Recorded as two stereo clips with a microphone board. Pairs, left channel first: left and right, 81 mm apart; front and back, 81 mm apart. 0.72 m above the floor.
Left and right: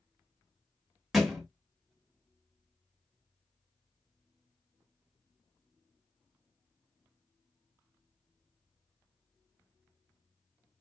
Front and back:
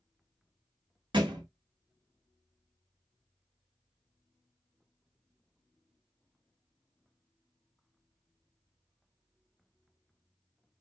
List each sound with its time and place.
1.1 s a thud: 175° right, 1.1 m